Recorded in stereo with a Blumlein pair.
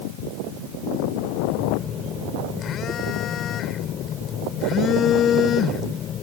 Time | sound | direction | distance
1.5 | a phone buzzing | 30° left | ?